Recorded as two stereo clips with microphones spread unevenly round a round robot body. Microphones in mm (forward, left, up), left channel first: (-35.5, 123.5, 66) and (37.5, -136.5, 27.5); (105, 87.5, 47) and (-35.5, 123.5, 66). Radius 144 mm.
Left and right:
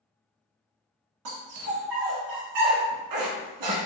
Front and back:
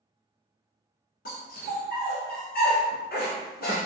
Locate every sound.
1.2 s a dog barking: 65° right, 1.3 m